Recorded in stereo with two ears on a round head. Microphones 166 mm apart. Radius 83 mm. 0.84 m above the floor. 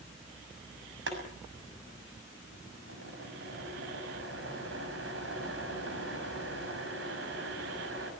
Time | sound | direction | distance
1.1 | boiling | 70° right (ahead or behind) | 6.5 m